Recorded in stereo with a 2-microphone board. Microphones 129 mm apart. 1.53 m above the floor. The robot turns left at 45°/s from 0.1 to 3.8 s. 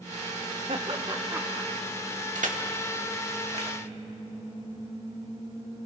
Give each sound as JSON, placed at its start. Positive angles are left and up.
{"t": 0.7, "sound": "laughter", "side_deg": -50, "distance_m": 1.1}
{"t": 2.4, "sound": "crushing", "side_deg": -75, "distance_m": 2.0}